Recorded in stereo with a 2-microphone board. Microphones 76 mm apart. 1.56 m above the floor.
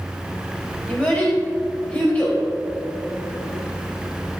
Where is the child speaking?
15° left (ahead or behind), 3.5 m.